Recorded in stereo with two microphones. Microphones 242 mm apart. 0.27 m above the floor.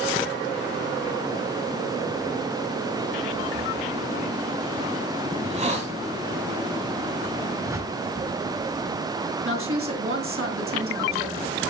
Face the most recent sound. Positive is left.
turn(degrees=-65)  # may be behind; listen again after turning